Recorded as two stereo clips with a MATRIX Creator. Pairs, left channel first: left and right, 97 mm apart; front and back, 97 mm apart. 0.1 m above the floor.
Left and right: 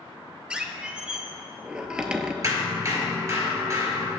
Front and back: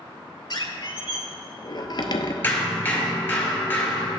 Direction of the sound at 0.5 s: 10° right.